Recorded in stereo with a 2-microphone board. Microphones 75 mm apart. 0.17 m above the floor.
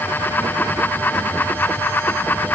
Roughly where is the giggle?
I don't hear a giggle.